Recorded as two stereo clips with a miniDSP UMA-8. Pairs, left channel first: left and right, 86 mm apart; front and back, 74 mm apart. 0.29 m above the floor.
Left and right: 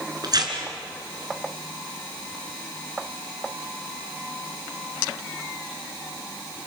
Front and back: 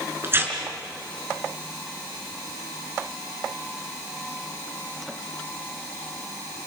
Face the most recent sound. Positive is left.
turn(degrees=-125)